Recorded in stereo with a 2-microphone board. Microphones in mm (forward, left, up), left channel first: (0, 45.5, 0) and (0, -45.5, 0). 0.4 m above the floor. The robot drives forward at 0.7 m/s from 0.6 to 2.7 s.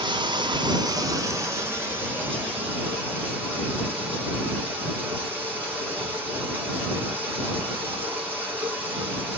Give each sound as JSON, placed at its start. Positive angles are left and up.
{"t": 0.0, "sound": "running water", "side_deg": -60, "distance_m": 0.7}